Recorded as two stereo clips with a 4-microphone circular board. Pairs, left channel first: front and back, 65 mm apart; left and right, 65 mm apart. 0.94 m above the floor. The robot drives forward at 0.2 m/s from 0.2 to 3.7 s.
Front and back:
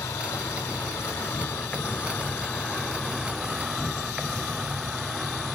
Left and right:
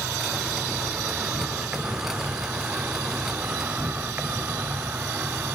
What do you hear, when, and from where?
0.0 s an insect: 20° right, 0.8 m; by 5.5 s 110° right, 0.5 m